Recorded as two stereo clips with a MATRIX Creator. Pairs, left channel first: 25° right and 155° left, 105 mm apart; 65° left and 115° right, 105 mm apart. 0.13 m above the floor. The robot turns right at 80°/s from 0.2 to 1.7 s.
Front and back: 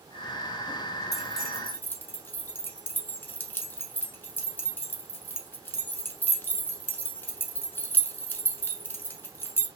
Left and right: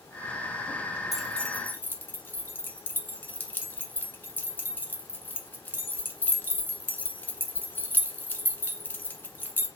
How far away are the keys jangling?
About 0.9 m.